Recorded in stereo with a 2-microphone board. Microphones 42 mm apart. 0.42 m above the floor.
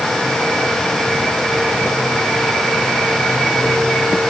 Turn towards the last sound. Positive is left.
No sound to turn to.